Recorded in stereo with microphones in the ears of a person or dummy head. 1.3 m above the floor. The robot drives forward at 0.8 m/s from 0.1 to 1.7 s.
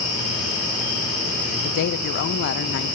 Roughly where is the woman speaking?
Left.